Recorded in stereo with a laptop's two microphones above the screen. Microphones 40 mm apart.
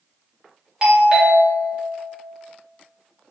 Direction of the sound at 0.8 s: 20° right (ahead or behind).